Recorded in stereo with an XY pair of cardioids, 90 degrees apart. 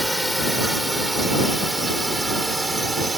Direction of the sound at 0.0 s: Straight ahead.